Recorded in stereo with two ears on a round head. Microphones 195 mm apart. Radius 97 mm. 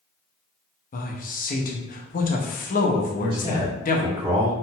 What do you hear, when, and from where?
0.9 s a man speaking: 40° left (ahead or behind), 0.8 m
3.2 s a man speaking: 15° right (ahead or behind), 1.7 m